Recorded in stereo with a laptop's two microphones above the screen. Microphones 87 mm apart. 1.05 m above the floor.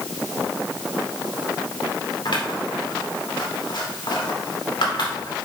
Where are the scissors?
65° left (ahead or behind), 2.5 m.